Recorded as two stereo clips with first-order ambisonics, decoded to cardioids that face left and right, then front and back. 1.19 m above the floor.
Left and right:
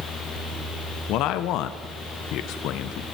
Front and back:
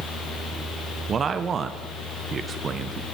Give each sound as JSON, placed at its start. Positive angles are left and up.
{"t": 1.1, "sound": "a man speaking", "azimuth_deg": 115, "distance_m": 0.6}